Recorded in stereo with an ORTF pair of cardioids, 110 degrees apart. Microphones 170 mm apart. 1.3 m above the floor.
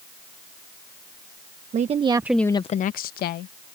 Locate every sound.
1.7 s a woman speaking: 45° right; by 3.5 s 80° left